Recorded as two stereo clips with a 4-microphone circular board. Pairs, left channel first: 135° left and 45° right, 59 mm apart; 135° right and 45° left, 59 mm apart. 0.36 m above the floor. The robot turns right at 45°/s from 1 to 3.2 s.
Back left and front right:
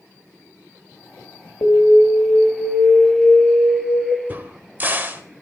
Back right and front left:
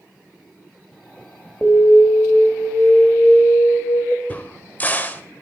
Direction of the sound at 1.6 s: 135° left.